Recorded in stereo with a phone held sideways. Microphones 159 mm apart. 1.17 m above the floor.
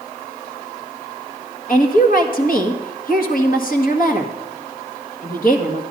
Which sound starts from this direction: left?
A woman speaking, at 1.7 s.